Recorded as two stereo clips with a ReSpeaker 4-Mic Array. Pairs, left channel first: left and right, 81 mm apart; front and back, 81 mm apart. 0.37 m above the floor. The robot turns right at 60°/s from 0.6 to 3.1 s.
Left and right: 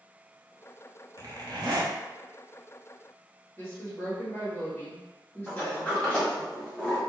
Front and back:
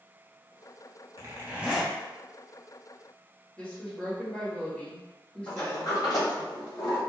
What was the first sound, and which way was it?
A zipper, 135° right.